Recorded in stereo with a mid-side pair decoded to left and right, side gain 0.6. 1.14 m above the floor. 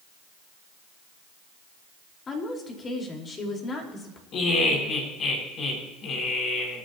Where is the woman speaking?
35° left, 5 m.